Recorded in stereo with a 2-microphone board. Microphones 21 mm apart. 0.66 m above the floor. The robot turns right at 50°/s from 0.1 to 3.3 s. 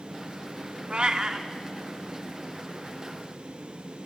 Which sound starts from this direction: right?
A cat meowing, at 0.9 s.